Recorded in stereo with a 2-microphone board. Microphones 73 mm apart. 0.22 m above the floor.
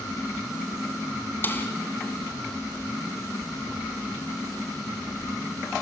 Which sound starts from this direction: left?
A snare drum, at 1.4 s.